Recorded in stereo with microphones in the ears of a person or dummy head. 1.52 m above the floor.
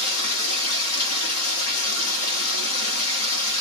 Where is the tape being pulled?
I don't hear tape being pulled.